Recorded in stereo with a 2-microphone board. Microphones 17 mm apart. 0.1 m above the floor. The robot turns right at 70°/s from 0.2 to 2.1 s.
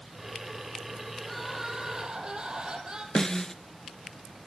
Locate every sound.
1.2 s crying: 170° left, 4 m; by 3.0 s 125° right, 4 m
3.1 s a snare drum: 30° left (ahead or behind), 0.8 m